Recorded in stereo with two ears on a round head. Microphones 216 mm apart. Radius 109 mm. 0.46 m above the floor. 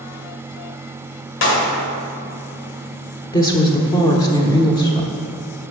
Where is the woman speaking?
15° left (ahead or behind), 0.9 m.